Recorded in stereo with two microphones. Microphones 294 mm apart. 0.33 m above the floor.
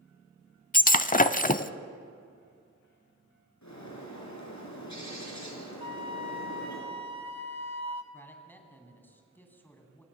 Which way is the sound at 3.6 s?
70° left (ahead or behind).